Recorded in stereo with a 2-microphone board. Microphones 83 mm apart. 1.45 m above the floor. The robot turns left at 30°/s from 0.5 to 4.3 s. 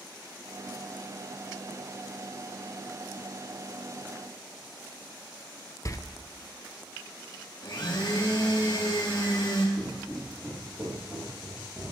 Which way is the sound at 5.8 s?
40° left (ahead or behind).